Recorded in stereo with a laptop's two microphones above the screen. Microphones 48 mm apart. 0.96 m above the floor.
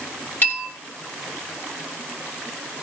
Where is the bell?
40° left (ahead or behind), 5.5 m.